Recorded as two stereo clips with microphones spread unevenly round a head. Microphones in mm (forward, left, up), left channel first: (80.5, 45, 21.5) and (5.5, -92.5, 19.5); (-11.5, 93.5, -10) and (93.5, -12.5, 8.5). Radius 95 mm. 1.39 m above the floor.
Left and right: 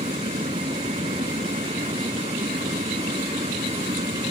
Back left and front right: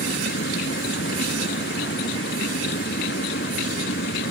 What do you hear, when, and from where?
0.0 s a fan: 175° left